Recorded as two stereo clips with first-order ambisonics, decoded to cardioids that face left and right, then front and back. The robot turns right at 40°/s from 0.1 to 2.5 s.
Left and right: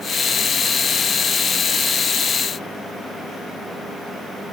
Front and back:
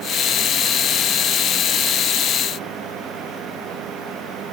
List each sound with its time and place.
Only background noise.